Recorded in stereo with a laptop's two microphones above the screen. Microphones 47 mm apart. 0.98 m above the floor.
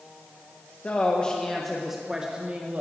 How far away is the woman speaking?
About 1.0 m.